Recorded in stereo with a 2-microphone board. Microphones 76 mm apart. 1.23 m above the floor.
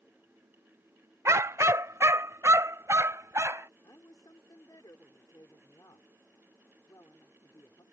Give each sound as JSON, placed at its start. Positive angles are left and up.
{"t": 1.2, "sound": "a dog barking", "side_deg": -45}
{"t": 3.8, "sound": "a woman speaking", "side_deg": 55}